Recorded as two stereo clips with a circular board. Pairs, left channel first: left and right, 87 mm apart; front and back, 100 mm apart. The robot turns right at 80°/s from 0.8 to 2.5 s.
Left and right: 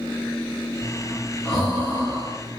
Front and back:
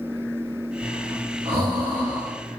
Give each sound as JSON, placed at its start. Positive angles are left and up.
{"t": 0.8, "sound": "breathing", "azimuth_deg": 115, "distance_m": 4.0}